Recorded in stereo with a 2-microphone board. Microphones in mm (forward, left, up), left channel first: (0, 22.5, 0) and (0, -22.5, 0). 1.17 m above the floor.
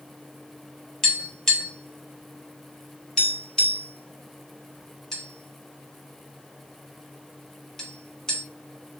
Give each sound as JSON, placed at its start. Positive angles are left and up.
{"t": 1.0, "sound": "tapping", "side_deg": 15, "distance_m": 1.0}